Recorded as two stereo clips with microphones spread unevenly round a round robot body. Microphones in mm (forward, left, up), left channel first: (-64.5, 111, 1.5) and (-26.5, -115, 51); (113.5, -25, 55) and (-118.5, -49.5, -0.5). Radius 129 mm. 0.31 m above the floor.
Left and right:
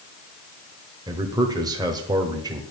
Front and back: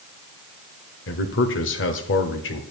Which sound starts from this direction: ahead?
A man speaking, at 1.1 s.